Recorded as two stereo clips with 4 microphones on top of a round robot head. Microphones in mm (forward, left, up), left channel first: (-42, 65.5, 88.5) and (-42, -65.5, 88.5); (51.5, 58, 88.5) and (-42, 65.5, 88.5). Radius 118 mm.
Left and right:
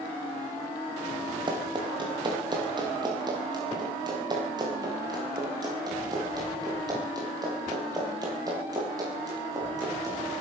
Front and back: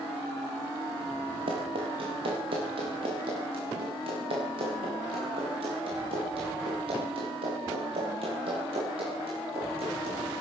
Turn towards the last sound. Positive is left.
turn(degrees=-150)